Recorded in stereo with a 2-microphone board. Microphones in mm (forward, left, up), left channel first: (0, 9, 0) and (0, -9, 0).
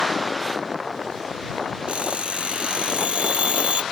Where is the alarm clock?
80° right.